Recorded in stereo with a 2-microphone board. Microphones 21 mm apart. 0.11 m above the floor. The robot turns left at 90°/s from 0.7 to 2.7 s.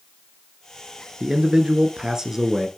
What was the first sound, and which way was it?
A man speaking, 35° right.